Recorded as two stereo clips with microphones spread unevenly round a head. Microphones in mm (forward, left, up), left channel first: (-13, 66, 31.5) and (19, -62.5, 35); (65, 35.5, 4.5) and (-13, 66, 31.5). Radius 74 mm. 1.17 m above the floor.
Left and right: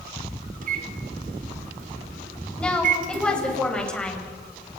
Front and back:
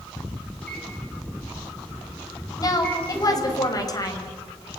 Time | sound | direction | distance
0.6 | a microwave | 105° right | 2.5 m
2.6 | a woman speaking | 20° left | 6.5 m